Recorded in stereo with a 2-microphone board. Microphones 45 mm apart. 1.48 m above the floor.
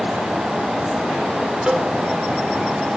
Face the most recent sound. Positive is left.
turn(degrees=-20)  # may be behind; listen again after turning